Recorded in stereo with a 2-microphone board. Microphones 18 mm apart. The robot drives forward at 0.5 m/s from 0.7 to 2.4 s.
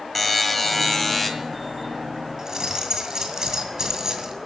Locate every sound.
0.1 s a buzzer: 5° left (ahead or behind), 1.6 m
2.4 s keys jangling: 35° right (ahead or behind), 1.9 m